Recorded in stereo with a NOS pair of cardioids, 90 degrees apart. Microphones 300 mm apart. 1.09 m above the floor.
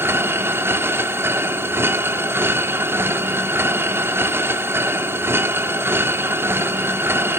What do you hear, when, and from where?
0.0 s a machine running: 10° right, 1.6 m